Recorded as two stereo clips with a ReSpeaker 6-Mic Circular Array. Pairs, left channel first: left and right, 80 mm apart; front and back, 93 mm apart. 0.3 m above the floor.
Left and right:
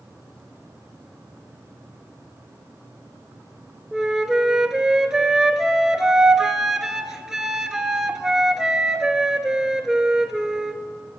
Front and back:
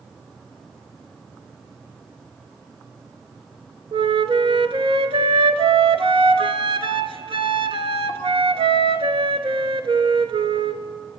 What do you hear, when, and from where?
3.9 s a flute: 175° right, 0.7 m